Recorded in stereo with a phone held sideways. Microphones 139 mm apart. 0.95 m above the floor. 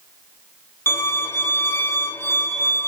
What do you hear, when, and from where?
0.9 s a violin: 20° left (ahead or behind), 1.1 m